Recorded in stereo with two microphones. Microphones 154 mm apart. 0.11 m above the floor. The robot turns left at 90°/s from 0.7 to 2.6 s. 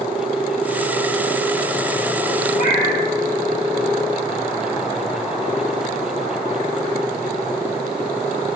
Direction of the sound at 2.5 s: 60° left (ahead or behind).